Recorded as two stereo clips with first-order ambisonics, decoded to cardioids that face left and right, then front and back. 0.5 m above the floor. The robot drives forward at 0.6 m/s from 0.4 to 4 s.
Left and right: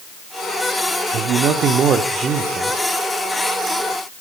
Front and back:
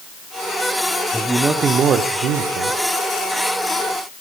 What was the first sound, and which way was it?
A man speaking, 90° right.